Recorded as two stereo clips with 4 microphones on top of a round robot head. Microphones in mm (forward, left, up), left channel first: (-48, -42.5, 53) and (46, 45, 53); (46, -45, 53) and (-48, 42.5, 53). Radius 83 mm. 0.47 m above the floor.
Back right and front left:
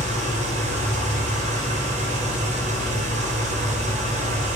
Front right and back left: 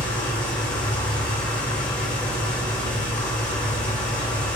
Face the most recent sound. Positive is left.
turn(degrees=35)